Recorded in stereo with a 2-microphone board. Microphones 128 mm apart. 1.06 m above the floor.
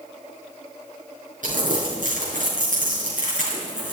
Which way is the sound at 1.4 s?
85° right.